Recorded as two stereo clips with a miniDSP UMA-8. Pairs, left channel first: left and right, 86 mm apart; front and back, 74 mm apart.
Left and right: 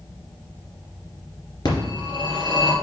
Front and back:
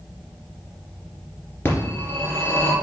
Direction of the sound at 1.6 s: 60° left.